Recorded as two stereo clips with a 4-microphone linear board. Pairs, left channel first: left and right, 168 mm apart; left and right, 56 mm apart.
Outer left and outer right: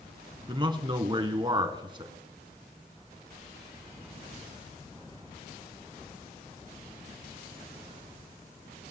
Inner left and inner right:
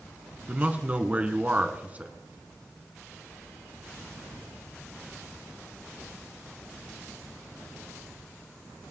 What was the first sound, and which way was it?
A man speaking, 30° right (ahead or behind).